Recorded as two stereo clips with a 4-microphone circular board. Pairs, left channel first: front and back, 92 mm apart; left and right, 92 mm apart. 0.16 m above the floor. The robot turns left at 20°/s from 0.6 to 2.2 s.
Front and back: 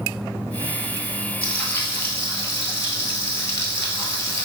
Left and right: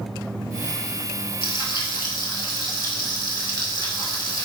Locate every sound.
1.4 s frying: 75° left, 1.1 m; by 4.5 s 60° left, 1.1 m